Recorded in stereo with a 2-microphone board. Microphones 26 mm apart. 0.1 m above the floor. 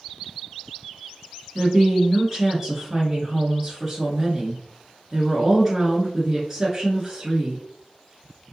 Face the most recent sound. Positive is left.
turn(degrees=-10)  # may be behind; listen again after turning